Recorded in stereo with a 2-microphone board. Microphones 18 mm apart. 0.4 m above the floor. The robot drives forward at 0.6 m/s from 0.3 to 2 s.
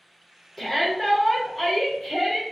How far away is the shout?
About 1.0 m.